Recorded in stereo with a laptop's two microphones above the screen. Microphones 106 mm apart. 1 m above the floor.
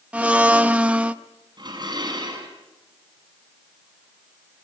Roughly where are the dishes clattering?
Right.